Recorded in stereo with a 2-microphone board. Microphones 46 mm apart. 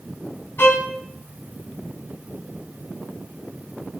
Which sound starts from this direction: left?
A violin, at 0.6 s.